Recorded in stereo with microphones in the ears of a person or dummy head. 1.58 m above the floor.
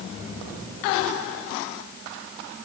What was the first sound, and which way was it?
Only background noise.